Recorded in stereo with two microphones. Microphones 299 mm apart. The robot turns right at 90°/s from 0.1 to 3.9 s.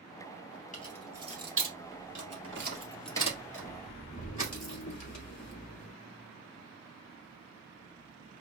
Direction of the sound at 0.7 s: 25° left (ahead or behind).